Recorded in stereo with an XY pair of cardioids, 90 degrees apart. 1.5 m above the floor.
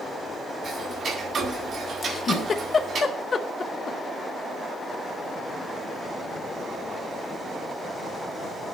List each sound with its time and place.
0.6 s ticking: 60° right, 4 m
2.0 s a giggle: 50° left, 1.0 m